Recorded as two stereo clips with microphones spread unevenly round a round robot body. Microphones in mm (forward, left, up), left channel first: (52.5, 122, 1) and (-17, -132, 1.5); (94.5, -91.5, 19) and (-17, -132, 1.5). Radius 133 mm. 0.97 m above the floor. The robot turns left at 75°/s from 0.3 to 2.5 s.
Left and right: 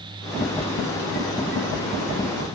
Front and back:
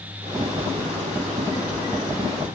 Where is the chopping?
No chopping in this recording.